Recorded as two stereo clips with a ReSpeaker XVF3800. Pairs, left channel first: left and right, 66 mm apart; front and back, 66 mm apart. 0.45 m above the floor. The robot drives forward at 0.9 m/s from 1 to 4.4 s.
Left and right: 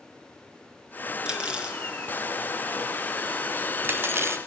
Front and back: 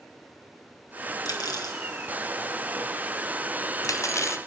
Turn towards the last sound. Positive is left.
turn(degrees=-45)